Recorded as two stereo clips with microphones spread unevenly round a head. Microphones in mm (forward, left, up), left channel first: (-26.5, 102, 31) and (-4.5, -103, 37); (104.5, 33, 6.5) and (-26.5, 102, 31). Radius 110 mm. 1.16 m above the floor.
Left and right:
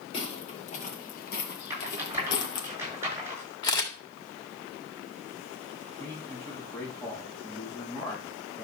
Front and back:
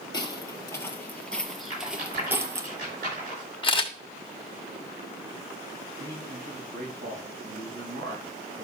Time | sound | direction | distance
0.1 | footsteps | 35° left | 1.9 m
1.7 | a rattle | 160° right | 6 m
3.6 | a camera shutter | 25° left | 1.9 m
6.0 | a man speaking | 175° left | 6 m